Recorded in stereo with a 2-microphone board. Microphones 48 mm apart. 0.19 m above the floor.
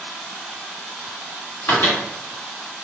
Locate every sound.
1.7 s a microwave: 45° left (ahead or behind), 1.8 m